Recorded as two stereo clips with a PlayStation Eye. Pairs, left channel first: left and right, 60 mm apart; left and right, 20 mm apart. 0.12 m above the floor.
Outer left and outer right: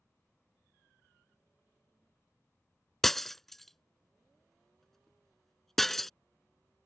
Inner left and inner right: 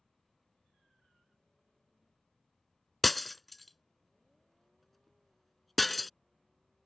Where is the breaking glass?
5° left (ahead or behind).